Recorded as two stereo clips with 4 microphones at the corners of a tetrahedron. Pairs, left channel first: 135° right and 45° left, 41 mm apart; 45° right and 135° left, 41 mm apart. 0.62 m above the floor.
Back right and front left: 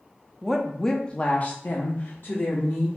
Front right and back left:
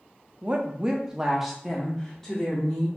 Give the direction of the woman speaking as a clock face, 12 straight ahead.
8 o'clock.